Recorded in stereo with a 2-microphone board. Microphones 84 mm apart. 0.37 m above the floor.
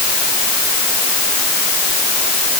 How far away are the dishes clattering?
No dishes clattering in this recording.